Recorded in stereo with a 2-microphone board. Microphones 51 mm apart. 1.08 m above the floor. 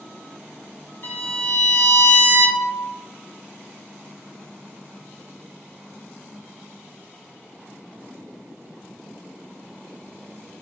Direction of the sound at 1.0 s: 50° left (ahead or behind).